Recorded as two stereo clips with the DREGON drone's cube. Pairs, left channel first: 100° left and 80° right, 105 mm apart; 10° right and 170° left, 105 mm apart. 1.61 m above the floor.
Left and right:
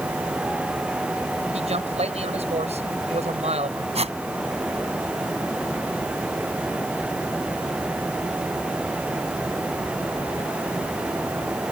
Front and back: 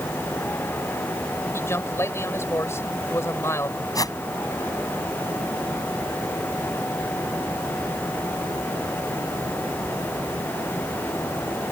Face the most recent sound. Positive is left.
turn(degrees=-65)